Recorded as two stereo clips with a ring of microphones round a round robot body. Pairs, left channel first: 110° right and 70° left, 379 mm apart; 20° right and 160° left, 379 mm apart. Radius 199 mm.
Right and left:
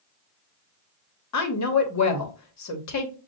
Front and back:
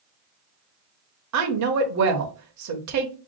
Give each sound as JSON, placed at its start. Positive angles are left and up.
{"t": 1.3, "sound": "a woman speaking", "azimuth_deg": -160, "distance_m": 1.2}